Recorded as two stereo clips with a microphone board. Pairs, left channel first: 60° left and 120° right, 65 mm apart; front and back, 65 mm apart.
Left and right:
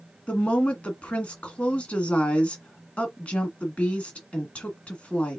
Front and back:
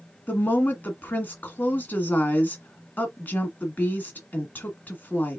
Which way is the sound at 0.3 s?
15° left.